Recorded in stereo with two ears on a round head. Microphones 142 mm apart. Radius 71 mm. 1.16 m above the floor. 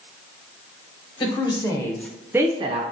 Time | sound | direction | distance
1.2 | a woman speaking | 30° left (ahead or behind) | 1.2 m